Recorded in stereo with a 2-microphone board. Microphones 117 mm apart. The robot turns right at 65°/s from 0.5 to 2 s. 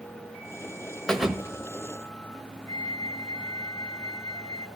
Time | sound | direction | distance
1.1 | a thud | 175° left | 1.2 m
2.7 | a flute | 25° left (ahead or behind) | 2.5 m